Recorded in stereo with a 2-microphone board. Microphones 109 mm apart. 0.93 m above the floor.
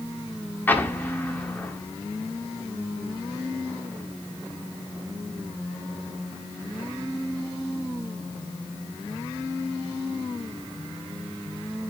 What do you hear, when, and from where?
0.7 s an explosion: 20° left (ahead or behind), 1.3 m